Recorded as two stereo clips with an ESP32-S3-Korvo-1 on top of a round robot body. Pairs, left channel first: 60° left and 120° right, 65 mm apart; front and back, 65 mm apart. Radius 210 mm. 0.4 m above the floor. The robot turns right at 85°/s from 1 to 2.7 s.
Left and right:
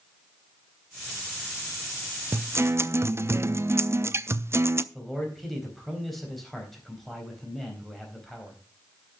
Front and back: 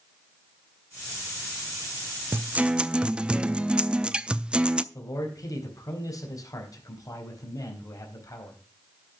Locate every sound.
2.3 s a guitar: 145° right, 0.8 m; by 4.8 s 115° right, 0.8 m
4.9 s a man speaking: 30° right, 4 m